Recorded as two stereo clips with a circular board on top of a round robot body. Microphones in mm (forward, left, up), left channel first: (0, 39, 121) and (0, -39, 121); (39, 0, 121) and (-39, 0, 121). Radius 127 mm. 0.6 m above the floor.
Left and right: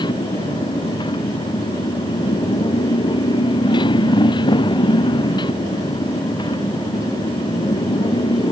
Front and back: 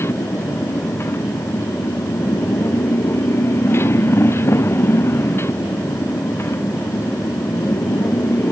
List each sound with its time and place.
0.0 s a motorcycle: 60° left